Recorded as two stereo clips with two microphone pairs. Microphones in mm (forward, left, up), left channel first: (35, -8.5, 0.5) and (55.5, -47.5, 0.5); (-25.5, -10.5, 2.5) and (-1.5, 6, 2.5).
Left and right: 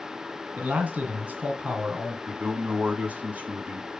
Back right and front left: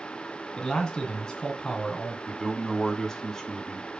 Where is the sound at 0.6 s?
95° right, 2 m.